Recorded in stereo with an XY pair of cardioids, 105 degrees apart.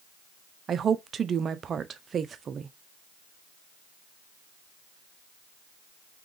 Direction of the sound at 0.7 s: 50° right.